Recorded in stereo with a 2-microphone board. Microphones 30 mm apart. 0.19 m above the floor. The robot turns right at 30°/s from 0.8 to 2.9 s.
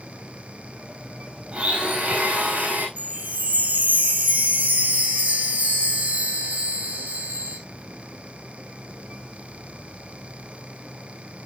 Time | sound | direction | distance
1.5 | a blender | 140° right | 4.5 m
3.0 | a chime | 80° right | 2.5 m